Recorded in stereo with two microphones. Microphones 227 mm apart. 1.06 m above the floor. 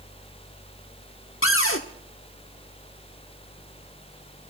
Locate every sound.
1.4 s a cupboard door: 65° left (ahead or behind), 1.2 m